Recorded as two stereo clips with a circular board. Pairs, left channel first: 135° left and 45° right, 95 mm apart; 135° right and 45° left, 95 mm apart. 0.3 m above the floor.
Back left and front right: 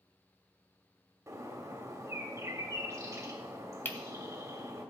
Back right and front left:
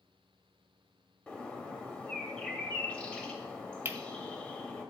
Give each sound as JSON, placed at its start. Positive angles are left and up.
{"t": 1.3, "sound": "a bird", "azimuth_deg": -65, "distance_m": 1.2}
{"t": 3.9, "sound": "cutlery clinking", "azimuth_deg": 85, "distance_m": 0.8}